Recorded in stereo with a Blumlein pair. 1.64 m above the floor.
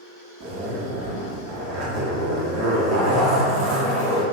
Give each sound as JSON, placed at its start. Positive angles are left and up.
{"t": 0.4, "sound": "a zipper", "azimuth_deg": -35, "distance_m": 0.6}